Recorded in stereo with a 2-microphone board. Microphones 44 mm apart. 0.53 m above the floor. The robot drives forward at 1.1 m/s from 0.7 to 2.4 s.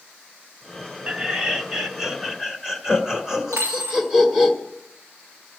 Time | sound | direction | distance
1.1 | laughter | 25° right (ahead or behind) | 0.8 m
3.5 | a dropped coin | 85° right | 5.5 m